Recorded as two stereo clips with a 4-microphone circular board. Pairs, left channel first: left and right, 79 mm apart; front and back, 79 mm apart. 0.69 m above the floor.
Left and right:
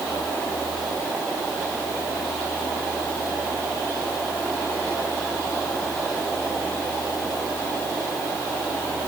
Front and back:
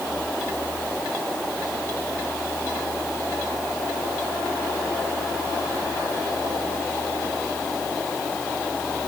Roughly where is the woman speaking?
I don't hear a woman speaking.